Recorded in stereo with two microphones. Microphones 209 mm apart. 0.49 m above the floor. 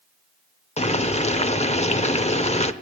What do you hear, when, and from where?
0.8 s boiling: 30° left (ahead or behind), 0.7 m